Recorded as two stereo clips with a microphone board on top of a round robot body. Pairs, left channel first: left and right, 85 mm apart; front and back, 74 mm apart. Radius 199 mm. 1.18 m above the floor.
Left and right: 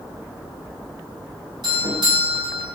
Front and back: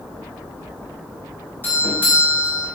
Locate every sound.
1.6 s a doorbell: 65° right, 4 m